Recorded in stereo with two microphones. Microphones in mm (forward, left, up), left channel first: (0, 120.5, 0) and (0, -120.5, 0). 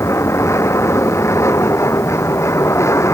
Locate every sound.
0.0 s an aircraft: 10° left (ahead or behind)